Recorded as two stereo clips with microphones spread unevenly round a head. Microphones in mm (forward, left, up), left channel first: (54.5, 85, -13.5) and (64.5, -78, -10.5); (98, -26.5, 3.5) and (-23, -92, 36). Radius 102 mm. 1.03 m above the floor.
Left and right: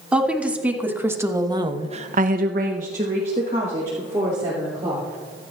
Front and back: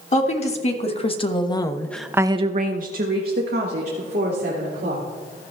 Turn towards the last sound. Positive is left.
turn(degrees=-165)